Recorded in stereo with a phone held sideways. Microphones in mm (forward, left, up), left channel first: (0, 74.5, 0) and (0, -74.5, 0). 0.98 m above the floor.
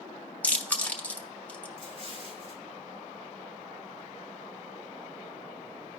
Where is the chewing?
10° left (ahead or behind), 0.9 m.